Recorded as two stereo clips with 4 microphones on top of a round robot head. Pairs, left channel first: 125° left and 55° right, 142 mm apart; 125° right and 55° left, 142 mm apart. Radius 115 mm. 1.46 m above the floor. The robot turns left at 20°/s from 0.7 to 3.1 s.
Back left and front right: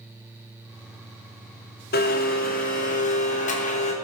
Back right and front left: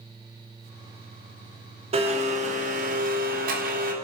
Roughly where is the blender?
Left.